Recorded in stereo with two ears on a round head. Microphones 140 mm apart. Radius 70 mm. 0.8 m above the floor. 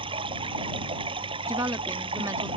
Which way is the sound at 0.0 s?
35° right (ahead or behind).